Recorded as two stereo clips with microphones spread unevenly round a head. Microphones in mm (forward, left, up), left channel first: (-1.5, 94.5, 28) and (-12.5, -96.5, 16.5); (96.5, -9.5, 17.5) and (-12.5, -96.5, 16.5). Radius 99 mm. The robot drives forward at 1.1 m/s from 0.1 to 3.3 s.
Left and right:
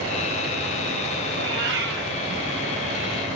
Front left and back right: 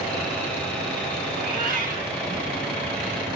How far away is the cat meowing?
About 6 m.